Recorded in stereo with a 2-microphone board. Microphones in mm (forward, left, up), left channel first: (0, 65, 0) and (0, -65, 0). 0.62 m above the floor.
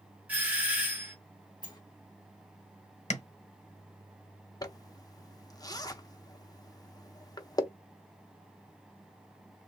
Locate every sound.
0.3 s a doorbell: 10° right (ahead or behind), 1.3 m
1.6 s a sliding door: 30° left (ahead or behind), 0.8 m
3.1 s tapping: 55° left (ahead or behind), 0.9 m
4.6 s a zipper: 30° left (ahead or behind), 0.5 m